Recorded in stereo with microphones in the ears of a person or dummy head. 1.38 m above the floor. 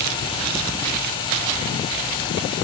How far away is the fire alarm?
I don't hear a fire alarm.